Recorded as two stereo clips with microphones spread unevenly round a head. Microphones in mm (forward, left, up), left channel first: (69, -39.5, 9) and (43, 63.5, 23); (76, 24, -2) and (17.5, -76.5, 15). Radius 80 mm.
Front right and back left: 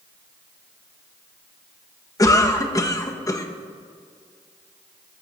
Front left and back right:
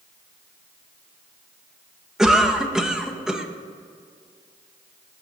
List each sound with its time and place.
2.2 s a cough: 30° right, 1.4 m